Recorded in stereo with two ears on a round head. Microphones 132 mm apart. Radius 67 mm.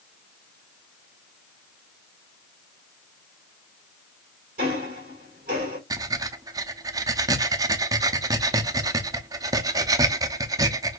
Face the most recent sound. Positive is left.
turn(degrees=-25)  # may be behind; listen again after turning